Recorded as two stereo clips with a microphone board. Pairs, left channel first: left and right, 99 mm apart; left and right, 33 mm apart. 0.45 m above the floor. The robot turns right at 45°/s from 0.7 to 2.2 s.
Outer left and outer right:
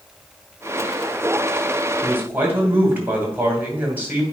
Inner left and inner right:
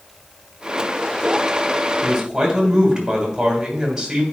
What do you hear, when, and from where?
2.0 s a man speaking: 30° right (ahead or behind), 2 m; by 4.2 s 20° right (ahead or behind), 2 m